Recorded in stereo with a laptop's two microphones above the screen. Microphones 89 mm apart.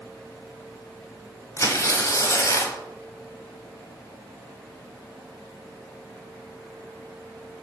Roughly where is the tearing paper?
Left.